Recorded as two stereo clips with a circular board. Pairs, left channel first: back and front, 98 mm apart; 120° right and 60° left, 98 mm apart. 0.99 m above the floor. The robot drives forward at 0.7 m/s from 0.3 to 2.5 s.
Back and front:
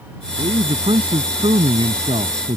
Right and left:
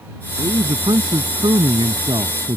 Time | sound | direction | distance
0.4 | a man speaking | 20° left | ?